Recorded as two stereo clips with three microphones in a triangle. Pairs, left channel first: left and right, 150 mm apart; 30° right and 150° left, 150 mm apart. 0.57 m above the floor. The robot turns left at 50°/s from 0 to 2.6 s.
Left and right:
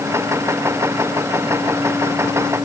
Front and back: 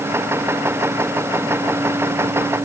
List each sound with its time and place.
Only background noise.